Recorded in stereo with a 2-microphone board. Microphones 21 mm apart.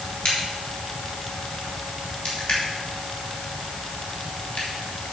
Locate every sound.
0.2 s a crack: 65° left (ahead or behind), 4 m